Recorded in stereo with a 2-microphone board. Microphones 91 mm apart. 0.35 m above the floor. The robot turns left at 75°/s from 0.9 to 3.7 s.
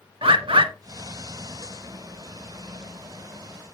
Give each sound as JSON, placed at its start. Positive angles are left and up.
{"t": 0.2, "sound": "a bird", "side_deg": -80, "distance_m": 0.6}